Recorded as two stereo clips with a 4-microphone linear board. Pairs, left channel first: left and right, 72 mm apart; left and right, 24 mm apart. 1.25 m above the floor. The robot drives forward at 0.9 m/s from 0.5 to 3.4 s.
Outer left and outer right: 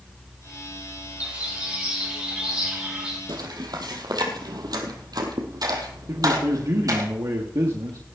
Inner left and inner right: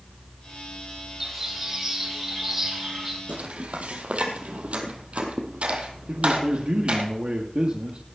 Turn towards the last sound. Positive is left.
turn(degrees=-55)  # may be behind; listen again after turning